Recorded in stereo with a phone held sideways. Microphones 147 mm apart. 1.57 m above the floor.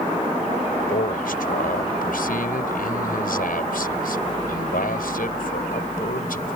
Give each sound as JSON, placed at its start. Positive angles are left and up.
{"t": 0.9, "sound": "a man speaking", "side_deg": 75}